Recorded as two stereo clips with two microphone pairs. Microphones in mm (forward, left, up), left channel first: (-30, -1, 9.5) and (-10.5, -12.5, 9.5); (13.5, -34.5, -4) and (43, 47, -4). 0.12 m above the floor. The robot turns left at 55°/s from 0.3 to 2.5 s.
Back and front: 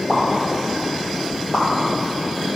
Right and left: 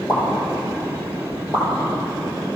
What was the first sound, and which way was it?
A pop, 95° right.